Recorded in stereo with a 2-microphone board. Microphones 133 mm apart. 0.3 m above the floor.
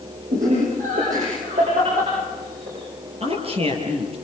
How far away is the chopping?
I don't hear chopping.